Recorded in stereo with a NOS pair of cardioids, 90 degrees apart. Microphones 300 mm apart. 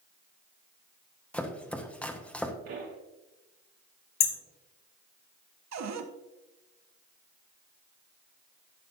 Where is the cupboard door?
60° right, 1.2 m.